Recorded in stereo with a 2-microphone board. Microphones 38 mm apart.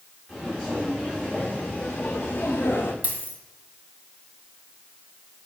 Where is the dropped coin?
40° right (ahead or behind), 1.6 m.